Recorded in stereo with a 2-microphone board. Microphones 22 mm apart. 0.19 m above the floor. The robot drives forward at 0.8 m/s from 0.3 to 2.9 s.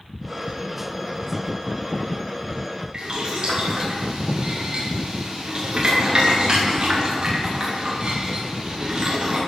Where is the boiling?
35° right (ahead or behind), 7 m.